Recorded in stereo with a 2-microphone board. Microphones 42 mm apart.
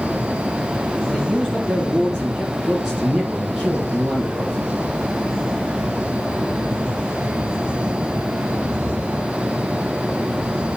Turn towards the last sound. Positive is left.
turn(degrees=-5)  # may be behind; listen again after turning